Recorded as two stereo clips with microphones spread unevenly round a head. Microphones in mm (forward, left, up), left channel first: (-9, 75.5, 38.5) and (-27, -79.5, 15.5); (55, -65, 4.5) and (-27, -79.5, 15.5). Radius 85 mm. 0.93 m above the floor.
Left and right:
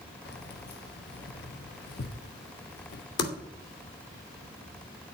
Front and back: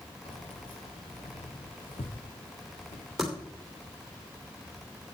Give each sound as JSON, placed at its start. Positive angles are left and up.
{"t": 0.2, "sound": "keys jangling", "azimuth_deg": 50, "distance_m": 1.0}
{"t": 3.2, "sound": "typing on a keyboard", "azimuth_deg": 100, "distance_m": 2.5}